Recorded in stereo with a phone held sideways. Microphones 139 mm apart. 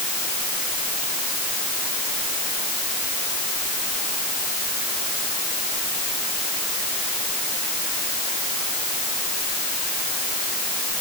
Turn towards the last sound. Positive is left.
No sound to turn to.